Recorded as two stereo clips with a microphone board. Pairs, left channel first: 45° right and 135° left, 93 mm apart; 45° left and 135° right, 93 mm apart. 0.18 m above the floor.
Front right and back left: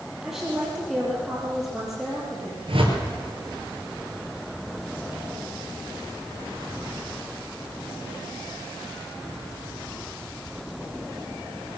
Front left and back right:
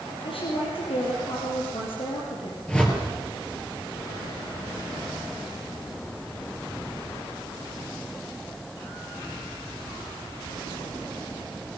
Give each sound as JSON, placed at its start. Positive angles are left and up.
{"t": 0.2, "sound": "a woman speaking", "azimuth_deg": 50, "distance_m": 4.0}
{"t": 2.7, "sound": "a whoosh", "azimuth_deg": 125, "distance_m": 4.0}